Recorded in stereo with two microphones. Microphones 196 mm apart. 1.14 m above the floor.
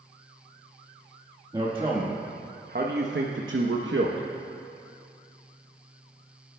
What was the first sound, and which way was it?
A man speaking, 20° right (ahead or behind).